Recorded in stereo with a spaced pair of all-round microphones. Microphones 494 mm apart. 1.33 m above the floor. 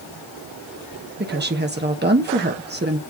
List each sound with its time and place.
1.2 s a woman speaking: 20° right (ahead or behind), 1.1 m